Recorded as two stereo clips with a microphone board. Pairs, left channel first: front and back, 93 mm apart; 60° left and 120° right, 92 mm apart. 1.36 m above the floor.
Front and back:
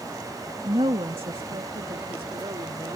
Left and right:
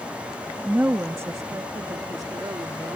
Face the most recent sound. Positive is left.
turn(degrees=-160)